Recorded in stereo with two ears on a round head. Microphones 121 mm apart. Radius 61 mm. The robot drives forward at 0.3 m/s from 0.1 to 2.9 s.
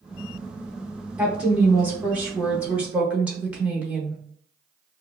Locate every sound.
1.2 s a woman speaking: 10° right (ahead or behind), 0.7 m